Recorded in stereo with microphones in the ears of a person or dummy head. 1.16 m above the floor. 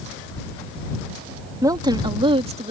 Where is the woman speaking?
15° right (ahead or behind); by 2.7 s 30° right (ahead or behind).